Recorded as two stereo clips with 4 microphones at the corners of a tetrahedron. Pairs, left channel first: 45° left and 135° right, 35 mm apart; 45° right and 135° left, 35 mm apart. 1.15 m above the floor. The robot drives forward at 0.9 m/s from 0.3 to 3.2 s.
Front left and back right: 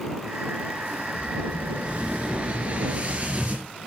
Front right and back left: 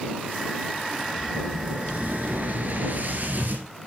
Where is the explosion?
170° left, 2.5 m; by 3.7 s 175° left, 4 m.